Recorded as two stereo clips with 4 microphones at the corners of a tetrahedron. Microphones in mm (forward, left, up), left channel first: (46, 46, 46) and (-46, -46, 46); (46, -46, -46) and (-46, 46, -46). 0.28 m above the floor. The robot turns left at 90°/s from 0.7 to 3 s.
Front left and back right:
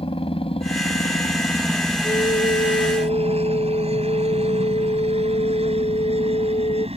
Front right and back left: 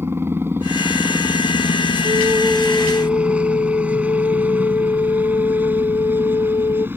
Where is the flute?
95° left; by 6.9 s 10° left.